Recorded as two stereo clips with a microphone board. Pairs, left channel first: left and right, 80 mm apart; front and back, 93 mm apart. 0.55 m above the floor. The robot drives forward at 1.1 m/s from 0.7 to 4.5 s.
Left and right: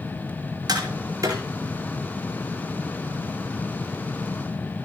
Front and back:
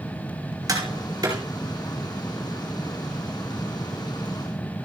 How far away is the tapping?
About 4.5 m.